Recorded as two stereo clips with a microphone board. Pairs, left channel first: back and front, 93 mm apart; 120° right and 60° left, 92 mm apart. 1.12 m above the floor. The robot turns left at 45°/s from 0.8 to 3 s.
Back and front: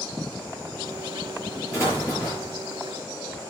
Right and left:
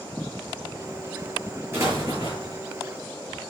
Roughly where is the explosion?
Behind left.